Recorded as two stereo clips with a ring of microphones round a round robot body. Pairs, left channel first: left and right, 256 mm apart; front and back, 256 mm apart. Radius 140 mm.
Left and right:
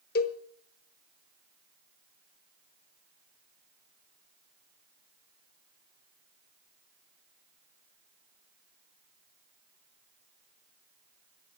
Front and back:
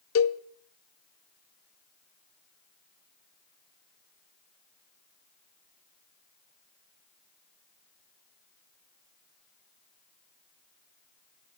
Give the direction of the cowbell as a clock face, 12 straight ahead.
11 o'clock.